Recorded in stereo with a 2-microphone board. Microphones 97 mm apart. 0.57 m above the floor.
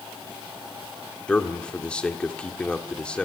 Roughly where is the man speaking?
Centre.